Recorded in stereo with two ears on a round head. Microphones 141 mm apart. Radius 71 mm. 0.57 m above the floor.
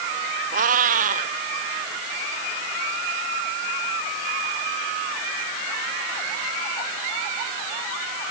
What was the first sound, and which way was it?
A cat meowing, 55° right (ahead or behind).